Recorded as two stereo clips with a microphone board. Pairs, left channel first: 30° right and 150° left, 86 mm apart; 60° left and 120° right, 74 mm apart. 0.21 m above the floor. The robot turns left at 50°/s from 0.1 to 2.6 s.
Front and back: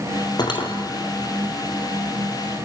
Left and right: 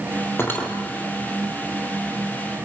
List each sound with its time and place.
0.4 s cutlery clinking: 5° left, 3.5 m; by 0.7 s 15° right, 3.5 m